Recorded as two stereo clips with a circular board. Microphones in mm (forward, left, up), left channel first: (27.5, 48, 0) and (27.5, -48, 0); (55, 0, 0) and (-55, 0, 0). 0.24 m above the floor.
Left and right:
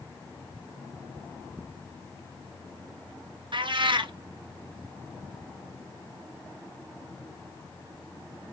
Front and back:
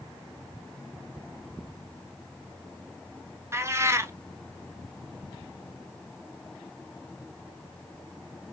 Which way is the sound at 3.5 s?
115° right.